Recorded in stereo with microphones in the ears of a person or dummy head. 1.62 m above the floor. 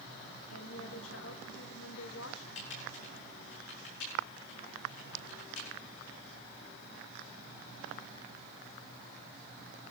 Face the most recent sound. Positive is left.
turn(degrees=80)